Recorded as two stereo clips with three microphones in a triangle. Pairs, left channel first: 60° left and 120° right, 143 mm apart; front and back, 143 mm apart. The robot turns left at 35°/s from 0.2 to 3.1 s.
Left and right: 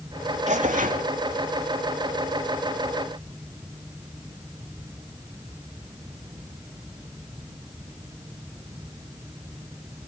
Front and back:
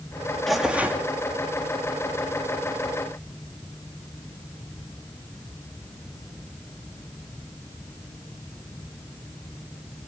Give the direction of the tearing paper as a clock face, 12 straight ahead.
3 o'clock.